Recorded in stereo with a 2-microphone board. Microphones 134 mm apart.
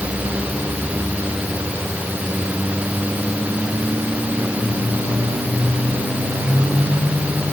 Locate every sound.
Only background noise.